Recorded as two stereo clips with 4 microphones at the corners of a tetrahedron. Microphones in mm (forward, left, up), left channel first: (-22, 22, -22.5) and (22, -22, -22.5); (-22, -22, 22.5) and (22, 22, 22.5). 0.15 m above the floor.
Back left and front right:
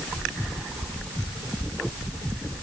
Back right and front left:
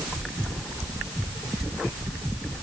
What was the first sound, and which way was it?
Only background noise.